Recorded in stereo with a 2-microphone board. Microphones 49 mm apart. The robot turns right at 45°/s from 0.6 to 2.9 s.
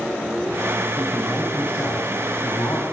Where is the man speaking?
Straight ahead, 5.5 m; by 2.8 s 80° left, 5.5 m.